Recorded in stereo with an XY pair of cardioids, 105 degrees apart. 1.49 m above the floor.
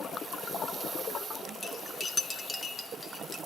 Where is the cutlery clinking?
25° left, 1.8 m.